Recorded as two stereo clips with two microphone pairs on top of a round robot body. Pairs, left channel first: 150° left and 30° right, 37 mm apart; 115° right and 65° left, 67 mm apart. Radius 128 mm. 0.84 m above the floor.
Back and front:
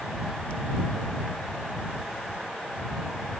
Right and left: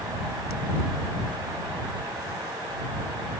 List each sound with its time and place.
Only background noise.